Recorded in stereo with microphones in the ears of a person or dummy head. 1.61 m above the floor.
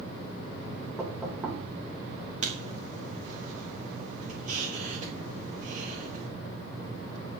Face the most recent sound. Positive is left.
turn(degrees=-40)  # may be behind; listen again after turning